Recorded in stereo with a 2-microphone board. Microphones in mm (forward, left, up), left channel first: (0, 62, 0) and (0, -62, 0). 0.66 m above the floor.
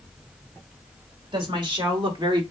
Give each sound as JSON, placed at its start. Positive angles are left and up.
{"t": 1.3, "sound": "a woman speaking", "side_deg": -40, "distance_m": 2.0}